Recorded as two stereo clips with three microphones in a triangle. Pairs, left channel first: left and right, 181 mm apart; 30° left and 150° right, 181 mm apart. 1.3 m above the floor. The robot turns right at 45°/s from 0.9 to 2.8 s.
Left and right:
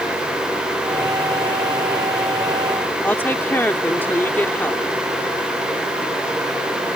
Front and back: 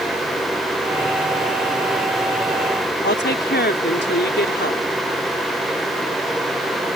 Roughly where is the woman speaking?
Ahead.